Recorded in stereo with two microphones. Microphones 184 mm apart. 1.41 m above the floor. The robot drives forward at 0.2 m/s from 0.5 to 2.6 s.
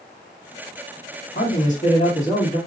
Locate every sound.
1.4 s a man speaking: 45° left (ahead or behind), 1.8 m; by 2.6 s 40° left (ahead or behind), 2.0 m